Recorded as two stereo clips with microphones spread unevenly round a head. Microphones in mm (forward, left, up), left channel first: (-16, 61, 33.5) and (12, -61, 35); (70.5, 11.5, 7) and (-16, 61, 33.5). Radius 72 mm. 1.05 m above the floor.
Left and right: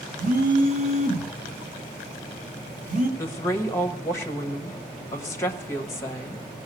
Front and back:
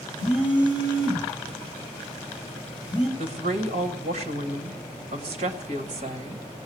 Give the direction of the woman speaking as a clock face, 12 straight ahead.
6 o'clock.